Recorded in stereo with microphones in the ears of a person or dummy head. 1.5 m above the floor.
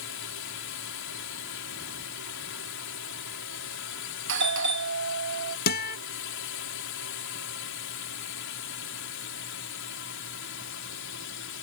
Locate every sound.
0.0 s a drone: 65° left (ahead or behind)
4.3 s a doorbell: 60° right (ahead or behind)
5.7 s a guitar: 50° left (ahead or behind)